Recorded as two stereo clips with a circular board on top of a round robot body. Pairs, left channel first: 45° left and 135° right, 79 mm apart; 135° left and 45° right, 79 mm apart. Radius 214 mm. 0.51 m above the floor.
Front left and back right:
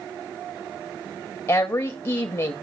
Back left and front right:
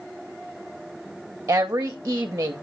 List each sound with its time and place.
1.5 s a woman speaking: 10° left, 1.2 m